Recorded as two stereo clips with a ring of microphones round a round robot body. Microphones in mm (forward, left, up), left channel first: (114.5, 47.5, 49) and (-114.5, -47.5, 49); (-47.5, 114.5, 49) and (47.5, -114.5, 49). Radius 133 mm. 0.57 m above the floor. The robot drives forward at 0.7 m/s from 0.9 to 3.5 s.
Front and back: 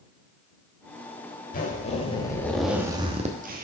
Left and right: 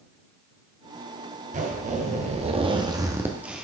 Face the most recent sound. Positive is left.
turn(degrees=-150)